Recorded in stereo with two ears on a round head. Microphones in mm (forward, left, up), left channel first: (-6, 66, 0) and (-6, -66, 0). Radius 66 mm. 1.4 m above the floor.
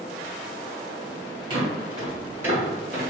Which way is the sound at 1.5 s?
35° right (ahead or behind).